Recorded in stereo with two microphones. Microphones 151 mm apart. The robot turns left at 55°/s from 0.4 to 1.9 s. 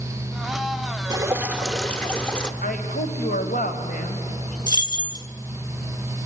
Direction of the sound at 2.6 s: 70° left (ahead or behind).